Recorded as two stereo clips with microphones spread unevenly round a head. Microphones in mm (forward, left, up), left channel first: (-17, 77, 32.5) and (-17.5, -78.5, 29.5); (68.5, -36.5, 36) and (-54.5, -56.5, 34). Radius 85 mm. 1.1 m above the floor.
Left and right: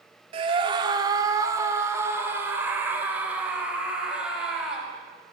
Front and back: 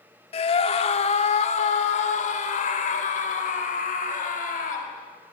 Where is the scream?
30° right, 2 m; by 4.9 s 5° right, 5 m.